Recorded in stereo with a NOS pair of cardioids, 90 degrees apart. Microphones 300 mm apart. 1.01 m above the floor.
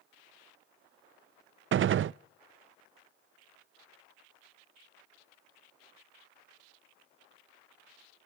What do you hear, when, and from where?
1.7 s a gunshot: 45° right, 0.5 m